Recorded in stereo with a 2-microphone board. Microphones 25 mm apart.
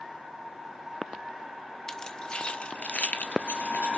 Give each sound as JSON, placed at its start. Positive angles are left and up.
{"t": 1.9, "sound": "keys jangling", "side_deg": 20, "distance_m": 1.1}